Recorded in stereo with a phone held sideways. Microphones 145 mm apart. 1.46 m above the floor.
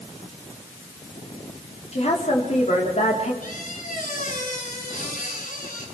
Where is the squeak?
65° left (ahead or behind), 6 m.